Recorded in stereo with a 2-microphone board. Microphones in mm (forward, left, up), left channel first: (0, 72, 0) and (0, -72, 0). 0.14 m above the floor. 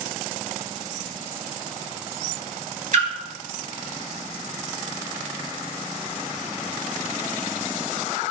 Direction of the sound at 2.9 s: 60° right (ahead or behind).